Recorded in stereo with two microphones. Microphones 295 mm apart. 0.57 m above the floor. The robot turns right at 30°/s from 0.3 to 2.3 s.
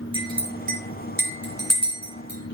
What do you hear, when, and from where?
0.1 s a clink: 15° right (ahead or behind), 5 m; by 2.5 s 75° right (ahead or behind), 5 m